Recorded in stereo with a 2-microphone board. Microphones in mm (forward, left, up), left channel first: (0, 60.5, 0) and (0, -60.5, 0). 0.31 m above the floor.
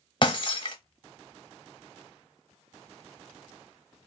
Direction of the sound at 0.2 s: 40° left (ahead or behind).